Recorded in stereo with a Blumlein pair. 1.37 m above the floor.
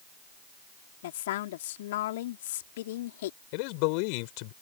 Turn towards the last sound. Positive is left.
turn(degrees=45)